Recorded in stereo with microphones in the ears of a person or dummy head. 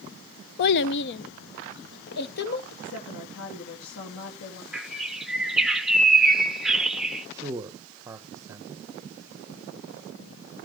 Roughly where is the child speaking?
Left.